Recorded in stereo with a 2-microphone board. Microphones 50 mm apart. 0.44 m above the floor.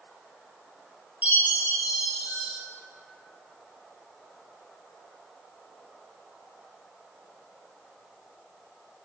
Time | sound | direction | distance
1.2 | a chime | 35° right (ahead or behind) | 0.6 m